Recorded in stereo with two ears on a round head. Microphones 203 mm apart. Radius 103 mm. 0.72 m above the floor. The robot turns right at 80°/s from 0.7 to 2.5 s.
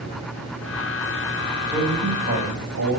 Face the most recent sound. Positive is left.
turn(degrees=-100)